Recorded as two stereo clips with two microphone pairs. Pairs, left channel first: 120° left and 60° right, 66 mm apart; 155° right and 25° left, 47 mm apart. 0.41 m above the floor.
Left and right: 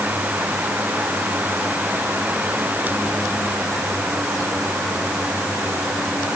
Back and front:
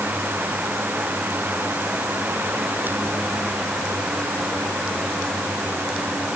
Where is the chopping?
No chopping in this recording.